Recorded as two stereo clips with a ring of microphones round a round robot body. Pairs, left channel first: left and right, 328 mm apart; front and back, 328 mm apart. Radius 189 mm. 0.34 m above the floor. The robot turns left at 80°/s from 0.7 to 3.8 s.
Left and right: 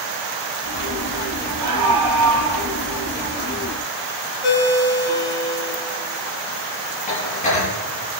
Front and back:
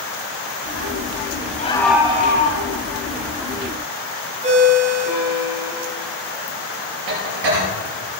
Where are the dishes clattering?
160° left, 6.5 m.